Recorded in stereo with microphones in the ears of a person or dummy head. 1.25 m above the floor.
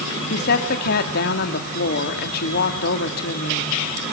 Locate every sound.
0.3 s a woman speaking: 60° left (ahead or behind), 2.5 m